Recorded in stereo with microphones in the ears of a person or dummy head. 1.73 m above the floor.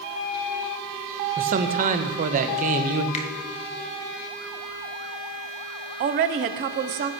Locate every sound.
1.4 s a man speaking: 45° right (ahead or behind), 1.0 m
3.1 s a finger snap: 40° left (ahead or behind), 1.2 m
6.0 s a woman speaking: 35° right (ahead or behind), 0.7 m